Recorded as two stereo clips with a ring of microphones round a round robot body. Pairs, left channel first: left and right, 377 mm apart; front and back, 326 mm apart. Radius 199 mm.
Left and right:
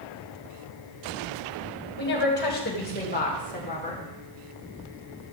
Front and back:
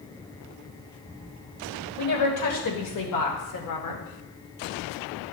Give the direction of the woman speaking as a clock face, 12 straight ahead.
11 o'clock.